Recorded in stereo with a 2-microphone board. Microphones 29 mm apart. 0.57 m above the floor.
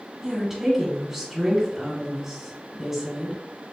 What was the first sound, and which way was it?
A woman speaking, 10° right (ahead or behind).